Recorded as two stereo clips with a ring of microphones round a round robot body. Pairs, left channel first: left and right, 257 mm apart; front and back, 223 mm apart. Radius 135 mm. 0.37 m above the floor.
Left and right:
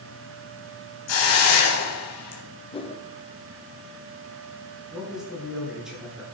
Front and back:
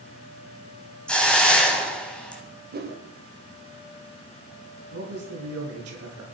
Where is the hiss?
85° left, 3.5 m.